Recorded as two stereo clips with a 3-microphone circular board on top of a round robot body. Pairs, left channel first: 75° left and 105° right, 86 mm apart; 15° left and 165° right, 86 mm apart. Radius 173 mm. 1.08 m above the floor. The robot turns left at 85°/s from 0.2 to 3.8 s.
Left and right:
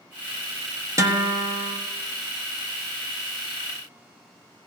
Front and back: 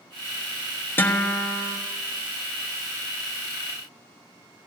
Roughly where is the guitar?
Ahead right.